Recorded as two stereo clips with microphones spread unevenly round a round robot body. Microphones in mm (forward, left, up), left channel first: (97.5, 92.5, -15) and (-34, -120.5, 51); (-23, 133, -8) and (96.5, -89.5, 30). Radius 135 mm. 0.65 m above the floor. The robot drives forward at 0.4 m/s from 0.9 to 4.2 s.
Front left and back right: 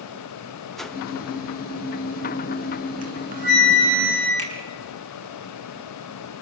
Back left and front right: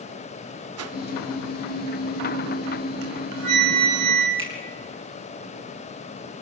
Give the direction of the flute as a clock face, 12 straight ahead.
2 o'clock.